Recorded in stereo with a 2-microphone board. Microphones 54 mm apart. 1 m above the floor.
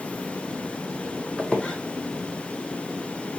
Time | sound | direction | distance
1.4 | a squeak | 20° left (ahead or behind) | 0.6 m